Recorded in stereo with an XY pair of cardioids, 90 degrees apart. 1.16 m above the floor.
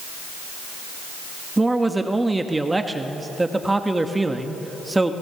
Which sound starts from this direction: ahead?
A man speaking, at 1.6 s.